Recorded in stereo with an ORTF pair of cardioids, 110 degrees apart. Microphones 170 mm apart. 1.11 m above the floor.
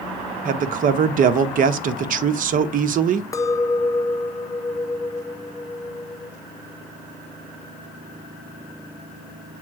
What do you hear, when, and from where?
0.5 s a man speaking: 55° right, 1.0 m
3.3 s a clink: 20° left, 0.5 m